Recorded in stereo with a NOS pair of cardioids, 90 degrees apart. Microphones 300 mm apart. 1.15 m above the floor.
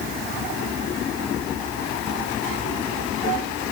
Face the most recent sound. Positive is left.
No sound to turn to.